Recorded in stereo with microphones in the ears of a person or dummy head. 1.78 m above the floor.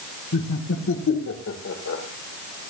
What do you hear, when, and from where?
0.3 s laughter: 65° left (ahead or behind), 1.5 m